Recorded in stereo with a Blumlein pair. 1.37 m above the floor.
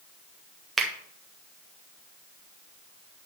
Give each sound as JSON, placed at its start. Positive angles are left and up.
{"t": 0.8, "sound": "a finger snap", "azimuth_deg": -5, "distance_m": 1.6}